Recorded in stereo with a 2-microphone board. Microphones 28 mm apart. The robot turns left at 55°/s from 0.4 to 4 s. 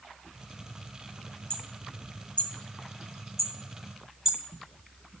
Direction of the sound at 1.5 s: 50° left (ahead or behind).